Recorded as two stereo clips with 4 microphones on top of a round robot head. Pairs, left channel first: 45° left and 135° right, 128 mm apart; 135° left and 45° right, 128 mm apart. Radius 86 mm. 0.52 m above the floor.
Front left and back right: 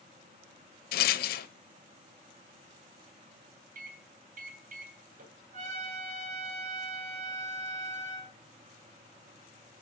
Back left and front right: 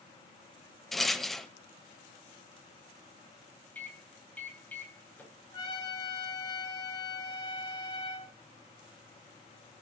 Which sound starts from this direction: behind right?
A microwave, at 3.8 s.